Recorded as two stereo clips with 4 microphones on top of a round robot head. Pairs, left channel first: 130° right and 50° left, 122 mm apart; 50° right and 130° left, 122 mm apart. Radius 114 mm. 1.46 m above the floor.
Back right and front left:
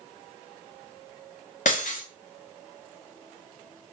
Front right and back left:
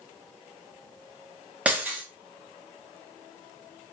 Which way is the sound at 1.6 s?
150° right.